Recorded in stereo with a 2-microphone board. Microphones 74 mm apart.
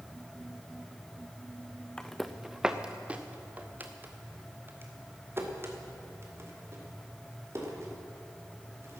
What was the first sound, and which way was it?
Footsteps, 10° left (ahead or behind).